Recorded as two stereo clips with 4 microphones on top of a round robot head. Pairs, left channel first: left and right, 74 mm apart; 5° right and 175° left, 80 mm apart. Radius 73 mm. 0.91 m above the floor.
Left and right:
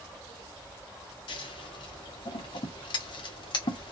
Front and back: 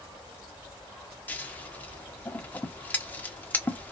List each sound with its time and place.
1.3 s scissors: 65° left, 0.7 m